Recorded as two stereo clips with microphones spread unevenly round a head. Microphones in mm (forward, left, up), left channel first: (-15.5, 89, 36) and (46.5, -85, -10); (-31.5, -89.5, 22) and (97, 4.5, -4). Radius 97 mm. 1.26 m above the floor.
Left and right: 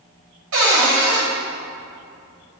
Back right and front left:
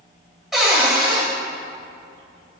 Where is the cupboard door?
55° right, 2.5 m.